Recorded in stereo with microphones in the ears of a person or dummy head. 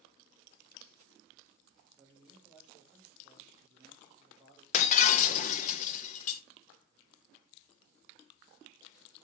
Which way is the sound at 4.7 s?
40° left (ahead or behind).